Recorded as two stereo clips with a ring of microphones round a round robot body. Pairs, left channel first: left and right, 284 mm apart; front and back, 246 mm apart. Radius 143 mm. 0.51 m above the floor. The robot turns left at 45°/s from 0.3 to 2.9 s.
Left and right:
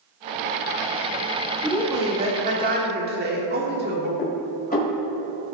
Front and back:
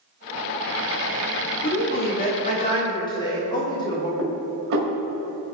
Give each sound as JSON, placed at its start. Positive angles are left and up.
{"t": 1.6, "sound": "a woman speaking", "azimuth_deg": -5, "distance_m": 1.5}
{"t": 4.2, "sound": "dishes clattering", "azimuth_deg": 150, "distance_m": 1.9}